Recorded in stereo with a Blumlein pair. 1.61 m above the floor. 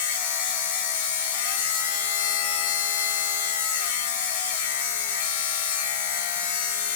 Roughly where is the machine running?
Ahead left.